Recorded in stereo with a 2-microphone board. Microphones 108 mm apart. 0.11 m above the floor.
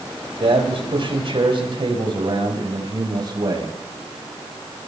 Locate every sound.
0.4 s a man speaking: 60° right (ahead or behind), 5 m; by 3.8 s 40° right (ahead or behind), 6 m